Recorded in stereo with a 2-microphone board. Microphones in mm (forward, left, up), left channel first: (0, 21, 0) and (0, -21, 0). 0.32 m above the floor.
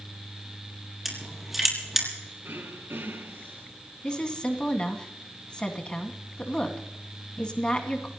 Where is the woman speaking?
25° left (ahead or behind), 2.5 m.